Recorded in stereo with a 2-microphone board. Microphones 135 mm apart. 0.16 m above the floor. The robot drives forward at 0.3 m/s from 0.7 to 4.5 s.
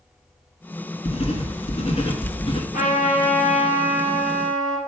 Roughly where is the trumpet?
Left.